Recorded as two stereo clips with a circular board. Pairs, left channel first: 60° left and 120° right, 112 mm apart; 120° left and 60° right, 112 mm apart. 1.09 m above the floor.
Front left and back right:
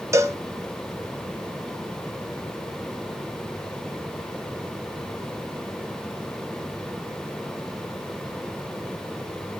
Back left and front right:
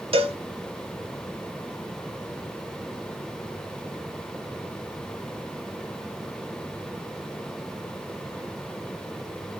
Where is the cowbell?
60° right, 1.2 m.